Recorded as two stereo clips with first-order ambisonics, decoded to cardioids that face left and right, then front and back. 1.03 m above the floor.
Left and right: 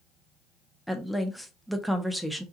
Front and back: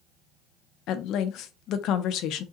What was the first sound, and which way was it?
A woman speaking, straight ahead.